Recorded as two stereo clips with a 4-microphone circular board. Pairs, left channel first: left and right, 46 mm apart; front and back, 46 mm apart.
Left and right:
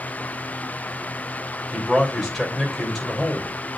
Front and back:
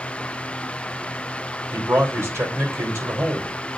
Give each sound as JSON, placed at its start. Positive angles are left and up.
{"t": 1.7, "sound": "a man speaking", "azimuth_deg": -175, "distance_m": 3.0}